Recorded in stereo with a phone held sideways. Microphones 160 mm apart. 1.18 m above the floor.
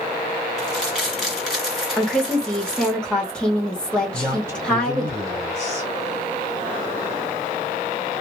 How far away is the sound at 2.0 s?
About 1.6 m.